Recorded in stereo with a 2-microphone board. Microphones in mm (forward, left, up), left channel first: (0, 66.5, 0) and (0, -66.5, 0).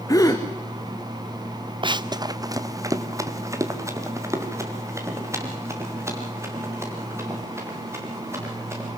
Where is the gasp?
25° left (ahead or behind), 2.5 m.